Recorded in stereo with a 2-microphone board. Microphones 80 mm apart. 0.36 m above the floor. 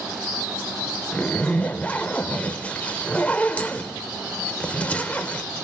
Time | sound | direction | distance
1.1 | a zipper | 20° left (ahead or behind) | 1.0 m